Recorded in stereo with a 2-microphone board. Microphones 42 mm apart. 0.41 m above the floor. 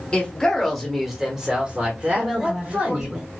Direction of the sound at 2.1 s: 20° right (ahead or behind).